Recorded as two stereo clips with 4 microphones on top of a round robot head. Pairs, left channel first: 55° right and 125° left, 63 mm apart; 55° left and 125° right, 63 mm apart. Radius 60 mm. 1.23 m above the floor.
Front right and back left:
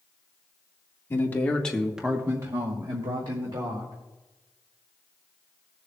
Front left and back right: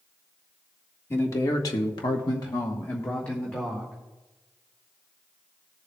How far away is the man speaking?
About 1.6 m.